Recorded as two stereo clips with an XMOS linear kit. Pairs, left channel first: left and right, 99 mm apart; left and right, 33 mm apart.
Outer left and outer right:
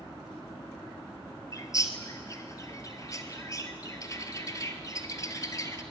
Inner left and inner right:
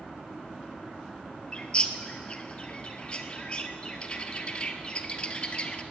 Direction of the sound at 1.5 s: 35° left (ahead or behind).